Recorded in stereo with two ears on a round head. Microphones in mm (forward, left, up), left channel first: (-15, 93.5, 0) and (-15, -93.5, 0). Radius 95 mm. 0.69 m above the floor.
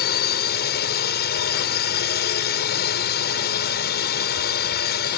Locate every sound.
0.0 s a drone: 55° left (ahead or behind)